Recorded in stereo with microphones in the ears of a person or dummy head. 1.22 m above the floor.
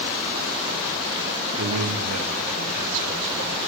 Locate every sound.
1.6 s a man speaking: 80° right, 1.2 m; by 3.6 s 70° right (ahead or behind), 2.5 m